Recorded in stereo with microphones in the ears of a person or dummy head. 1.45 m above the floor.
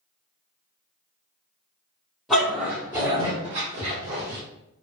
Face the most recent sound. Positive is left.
turn(degrees=-60)  # may be behind; listen again after turning